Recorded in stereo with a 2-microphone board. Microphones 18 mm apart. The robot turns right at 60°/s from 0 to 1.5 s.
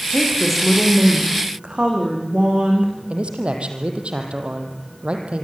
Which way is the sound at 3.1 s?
70° right (ahead or behind).